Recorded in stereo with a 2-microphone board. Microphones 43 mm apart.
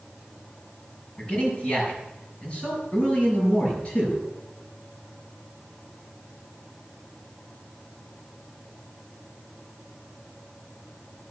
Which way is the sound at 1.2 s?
25° left (ahead or behind).